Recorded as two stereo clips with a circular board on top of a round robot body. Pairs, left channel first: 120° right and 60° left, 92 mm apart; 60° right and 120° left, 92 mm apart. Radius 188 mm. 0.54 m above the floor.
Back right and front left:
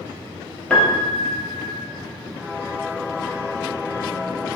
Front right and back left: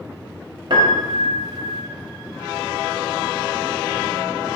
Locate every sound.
0.7 s a piano: 160° left, 0.6 m